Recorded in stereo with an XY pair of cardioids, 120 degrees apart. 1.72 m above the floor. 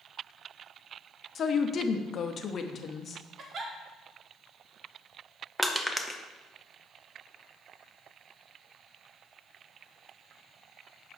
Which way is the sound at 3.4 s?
45° right.